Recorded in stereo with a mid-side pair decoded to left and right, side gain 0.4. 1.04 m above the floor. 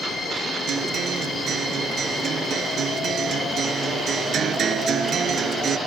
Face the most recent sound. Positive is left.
turn(degrees=-65)